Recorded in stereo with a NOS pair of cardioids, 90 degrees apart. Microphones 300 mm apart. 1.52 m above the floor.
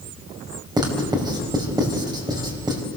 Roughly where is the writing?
Ahead.